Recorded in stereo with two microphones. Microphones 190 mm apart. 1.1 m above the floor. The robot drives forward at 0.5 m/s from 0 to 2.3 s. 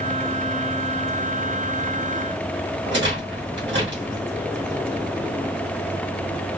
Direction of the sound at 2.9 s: 75° right (ahead or behind).